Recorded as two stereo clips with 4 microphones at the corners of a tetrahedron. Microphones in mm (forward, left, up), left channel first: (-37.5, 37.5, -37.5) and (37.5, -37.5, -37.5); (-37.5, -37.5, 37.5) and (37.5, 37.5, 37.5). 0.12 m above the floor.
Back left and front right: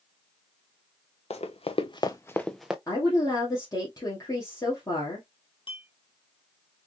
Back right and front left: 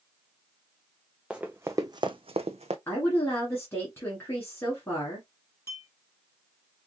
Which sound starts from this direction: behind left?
Running footsteps, at 1.3 s.